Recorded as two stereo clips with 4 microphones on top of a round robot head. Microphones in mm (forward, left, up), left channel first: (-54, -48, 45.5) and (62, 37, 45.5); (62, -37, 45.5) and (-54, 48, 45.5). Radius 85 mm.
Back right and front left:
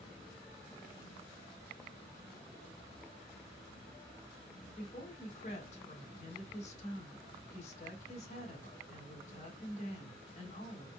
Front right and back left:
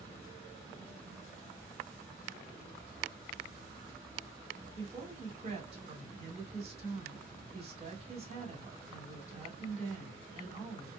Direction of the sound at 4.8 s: 175° right.